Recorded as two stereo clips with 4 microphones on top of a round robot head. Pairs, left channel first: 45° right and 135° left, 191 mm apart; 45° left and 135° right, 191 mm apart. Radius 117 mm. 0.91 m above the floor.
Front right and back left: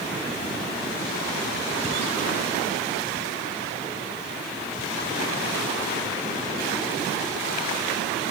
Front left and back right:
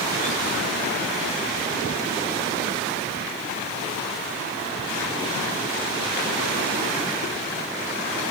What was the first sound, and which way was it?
Only background noise.